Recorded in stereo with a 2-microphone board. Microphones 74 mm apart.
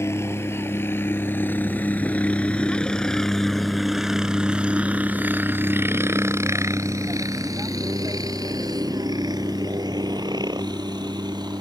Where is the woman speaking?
I don't hear a woman speaking.